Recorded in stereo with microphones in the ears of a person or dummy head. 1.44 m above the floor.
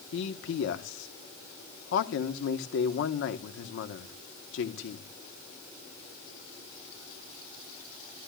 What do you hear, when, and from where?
0.1 s a man speaking: 65° left (ahead or behind), 1.1 m